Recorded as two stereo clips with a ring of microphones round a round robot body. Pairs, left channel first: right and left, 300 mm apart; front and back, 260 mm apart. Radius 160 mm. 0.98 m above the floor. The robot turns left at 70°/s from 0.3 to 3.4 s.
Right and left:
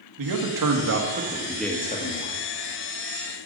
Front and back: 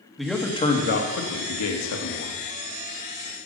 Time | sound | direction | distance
0.2 | a man speaking | 90° left | 2.0 m